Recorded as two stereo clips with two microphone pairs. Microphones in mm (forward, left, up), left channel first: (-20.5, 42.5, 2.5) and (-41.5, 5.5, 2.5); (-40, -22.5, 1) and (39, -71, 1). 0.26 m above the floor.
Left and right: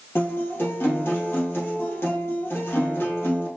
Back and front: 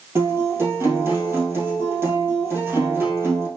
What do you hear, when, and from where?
0.1 s a guitar: 30° left, 2.5 m